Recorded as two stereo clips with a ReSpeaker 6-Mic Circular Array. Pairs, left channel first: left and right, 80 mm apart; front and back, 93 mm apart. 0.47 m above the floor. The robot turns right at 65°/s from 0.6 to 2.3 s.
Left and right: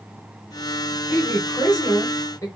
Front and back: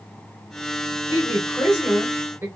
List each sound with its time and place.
1.1 s a woman speaking: 40° left, 1.5 m; by 2.5 s 120° left, 1.5 m